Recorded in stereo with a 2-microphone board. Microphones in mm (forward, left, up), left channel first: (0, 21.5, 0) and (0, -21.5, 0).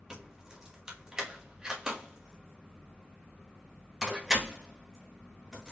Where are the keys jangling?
15° right (ahead or behind), 1.1 m.